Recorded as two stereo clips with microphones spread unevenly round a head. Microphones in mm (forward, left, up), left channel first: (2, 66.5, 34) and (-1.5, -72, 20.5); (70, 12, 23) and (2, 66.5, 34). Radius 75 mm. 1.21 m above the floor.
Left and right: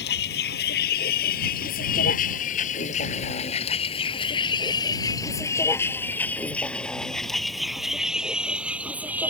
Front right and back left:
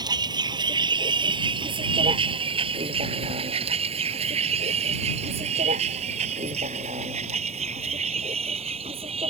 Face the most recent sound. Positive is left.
turn(degrees=-170)